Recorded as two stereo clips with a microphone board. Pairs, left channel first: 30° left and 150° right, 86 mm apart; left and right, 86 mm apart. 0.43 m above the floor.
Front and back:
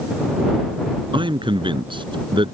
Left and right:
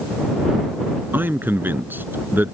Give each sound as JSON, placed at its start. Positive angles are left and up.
{"t": 1.1, "sound": "a man speaking", "azimuth_deg": -155}